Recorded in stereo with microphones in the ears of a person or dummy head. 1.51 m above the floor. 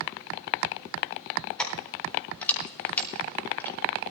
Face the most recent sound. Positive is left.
turn(degrees=15)  # may be behind; listen again after turning